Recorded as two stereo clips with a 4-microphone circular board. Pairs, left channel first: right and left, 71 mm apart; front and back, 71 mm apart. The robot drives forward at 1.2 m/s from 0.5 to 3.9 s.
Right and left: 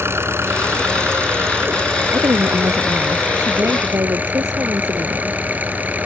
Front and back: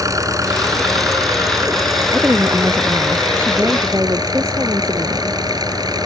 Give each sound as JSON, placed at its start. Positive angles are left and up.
{"t": 0.0, "sound": "an engine running", "azimuth_deg": 145}
{"t": 2.1, "sound": "a woman speaking", "azimuth_deg": 120}